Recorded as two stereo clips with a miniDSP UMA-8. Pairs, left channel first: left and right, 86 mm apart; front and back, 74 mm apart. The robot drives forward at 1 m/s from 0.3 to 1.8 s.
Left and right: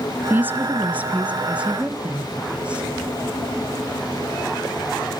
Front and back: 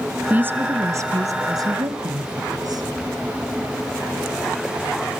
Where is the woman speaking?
135° right, 1.3 m; by 2.8 s 165° right, 2.5 m.